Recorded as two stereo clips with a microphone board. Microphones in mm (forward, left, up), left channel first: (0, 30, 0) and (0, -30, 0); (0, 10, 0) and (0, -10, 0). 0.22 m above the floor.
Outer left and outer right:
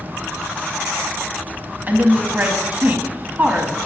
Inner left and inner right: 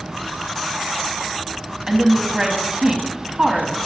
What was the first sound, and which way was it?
A woman speaking, 30° right (ahead or behind).